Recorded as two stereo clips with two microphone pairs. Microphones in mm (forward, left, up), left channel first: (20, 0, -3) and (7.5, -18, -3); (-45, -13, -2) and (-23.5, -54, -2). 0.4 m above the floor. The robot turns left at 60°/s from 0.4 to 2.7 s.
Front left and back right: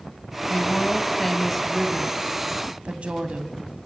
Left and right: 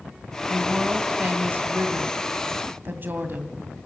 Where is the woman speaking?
25° left, 2 m; by 3.6 s 105° right, 2 m.